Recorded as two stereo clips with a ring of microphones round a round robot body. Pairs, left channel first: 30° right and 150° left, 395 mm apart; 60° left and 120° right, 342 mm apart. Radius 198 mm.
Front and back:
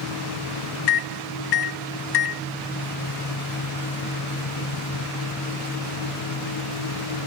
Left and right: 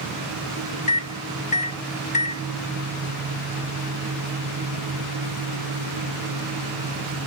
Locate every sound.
0.9 s a microwave: 10° right